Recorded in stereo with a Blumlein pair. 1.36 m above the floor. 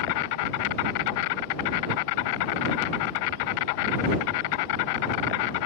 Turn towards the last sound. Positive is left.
turn(degrees=45)